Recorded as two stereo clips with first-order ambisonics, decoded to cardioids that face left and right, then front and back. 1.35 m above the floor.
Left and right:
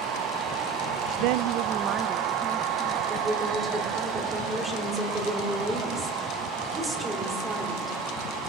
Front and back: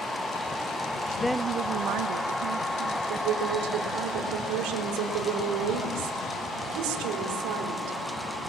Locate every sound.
1.2 s a woman speaking: 75° right, 0.5 m; by 3.0 s 170° right, 2.5 m
3.1 s a woman speaking: 170° right, 4 m